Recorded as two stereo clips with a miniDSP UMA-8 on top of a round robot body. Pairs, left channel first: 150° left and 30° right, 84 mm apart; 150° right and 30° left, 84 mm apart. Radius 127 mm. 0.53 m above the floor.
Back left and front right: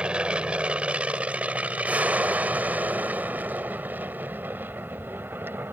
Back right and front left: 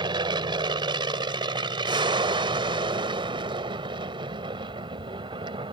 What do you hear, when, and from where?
0.0 s an aircraft: 45° left; by 5.8 s 35° left